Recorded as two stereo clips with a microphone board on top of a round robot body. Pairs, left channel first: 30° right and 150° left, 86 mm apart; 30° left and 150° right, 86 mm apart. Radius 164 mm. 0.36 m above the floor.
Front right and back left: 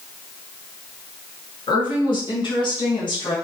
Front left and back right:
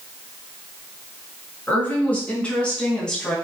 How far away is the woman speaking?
About 6.5 m.